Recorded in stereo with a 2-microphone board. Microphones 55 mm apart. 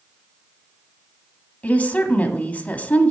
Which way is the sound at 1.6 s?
25° left (ahead or behind).